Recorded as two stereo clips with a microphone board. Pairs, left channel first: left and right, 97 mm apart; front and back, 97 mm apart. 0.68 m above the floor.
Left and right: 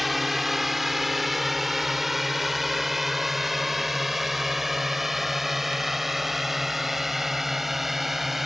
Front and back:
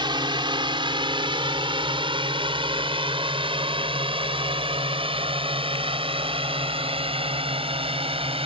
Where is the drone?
Straight behind.